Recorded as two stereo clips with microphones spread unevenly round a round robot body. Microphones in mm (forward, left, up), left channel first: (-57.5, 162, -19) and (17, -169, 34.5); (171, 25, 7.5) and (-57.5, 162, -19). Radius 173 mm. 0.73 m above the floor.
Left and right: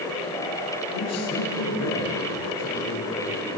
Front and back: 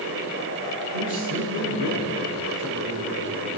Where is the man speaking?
150° left, 9.5 m.